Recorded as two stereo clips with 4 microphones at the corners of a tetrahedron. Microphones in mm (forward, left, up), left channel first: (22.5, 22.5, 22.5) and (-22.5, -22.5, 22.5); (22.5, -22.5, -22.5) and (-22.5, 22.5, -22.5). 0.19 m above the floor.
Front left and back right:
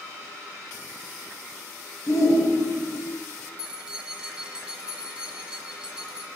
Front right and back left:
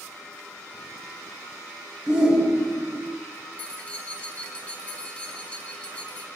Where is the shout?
60° left, 2.5 m.